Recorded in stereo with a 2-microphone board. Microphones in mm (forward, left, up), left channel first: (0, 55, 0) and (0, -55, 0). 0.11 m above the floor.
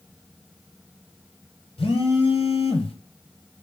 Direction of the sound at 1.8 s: 55° left (ahead or behind).